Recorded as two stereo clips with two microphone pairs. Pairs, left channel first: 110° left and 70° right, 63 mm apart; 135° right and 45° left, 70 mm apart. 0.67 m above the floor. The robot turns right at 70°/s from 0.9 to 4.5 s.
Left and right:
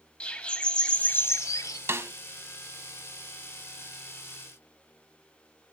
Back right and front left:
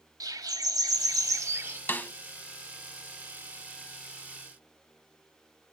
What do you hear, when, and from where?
0.2 s a bird: 40° left, 1.0 m; by 1.8 s 100° left, 1.0 m
1.9 s a snare drum: 90° right, 0.6 m; by 2.1 s 70° right, 0.6 m